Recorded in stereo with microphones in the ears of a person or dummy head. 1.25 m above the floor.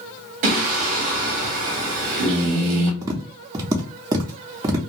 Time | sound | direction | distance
0.4 | singing | 50° right (ahead or behind) | 0.7 m
3.0 | tapping | 20° right (ahead or behind) | 0.5 m